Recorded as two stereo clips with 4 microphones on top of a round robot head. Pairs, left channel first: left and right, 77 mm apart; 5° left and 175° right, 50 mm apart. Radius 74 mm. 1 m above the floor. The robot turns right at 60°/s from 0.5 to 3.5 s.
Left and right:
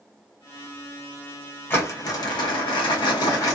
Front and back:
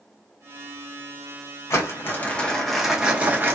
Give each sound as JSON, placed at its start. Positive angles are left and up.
{"t": 1.7, "sound": "crumpling", "azimuth_deg": 30, "distance_m": 0.9}